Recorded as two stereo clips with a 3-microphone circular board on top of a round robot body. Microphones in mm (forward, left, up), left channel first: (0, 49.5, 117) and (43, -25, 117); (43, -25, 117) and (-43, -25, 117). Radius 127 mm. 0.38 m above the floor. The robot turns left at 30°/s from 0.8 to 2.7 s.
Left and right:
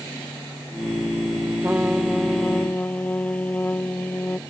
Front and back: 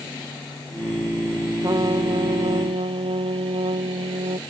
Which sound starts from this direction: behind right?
A trumpet, at 1.6 s.